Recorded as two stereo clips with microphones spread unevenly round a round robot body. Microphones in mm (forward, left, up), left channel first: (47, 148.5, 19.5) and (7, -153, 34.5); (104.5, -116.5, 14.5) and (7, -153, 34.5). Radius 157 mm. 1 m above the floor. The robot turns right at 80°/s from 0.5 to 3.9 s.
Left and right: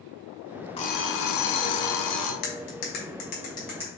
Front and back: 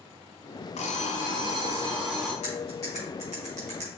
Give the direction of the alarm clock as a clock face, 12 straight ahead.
12 o'clock.